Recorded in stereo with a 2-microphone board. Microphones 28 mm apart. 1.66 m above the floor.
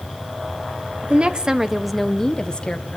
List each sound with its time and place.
1.0 s a woman speaking: 45° right (ahead or behind), 1.3 m; by 3.0 s 35° left (ahead or behind), 1.8 m